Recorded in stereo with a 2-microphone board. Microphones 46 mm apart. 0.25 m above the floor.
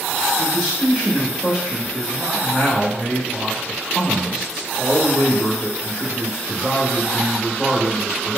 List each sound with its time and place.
0.4 s a man speaking: 10° right (ahead or behind), 1.6 m